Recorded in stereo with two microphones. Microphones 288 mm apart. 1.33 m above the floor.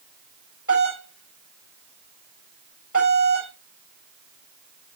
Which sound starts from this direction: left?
A doorbell, at 0.7 s.